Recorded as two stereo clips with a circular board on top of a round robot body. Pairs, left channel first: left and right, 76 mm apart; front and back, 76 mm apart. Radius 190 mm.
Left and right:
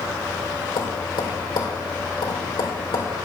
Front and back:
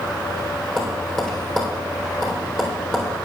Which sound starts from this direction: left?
Tapping, at 0.8 s.